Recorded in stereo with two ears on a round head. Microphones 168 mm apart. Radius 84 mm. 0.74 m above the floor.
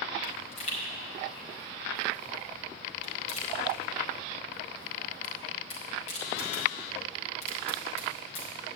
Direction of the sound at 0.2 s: 40° left (ahead or behind).